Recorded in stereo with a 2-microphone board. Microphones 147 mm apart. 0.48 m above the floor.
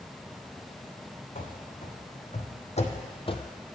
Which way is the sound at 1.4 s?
60° left (ahead or behind).